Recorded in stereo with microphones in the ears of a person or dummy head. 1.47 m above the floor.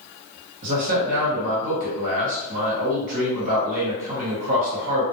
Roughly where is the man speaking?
Right.